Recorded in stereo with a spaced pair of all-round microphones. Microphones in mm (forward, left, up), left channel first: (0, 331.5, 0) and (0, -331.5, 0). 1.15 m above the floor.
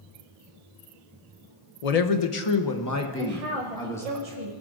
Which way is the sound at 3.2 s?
60° right (ahead or behind).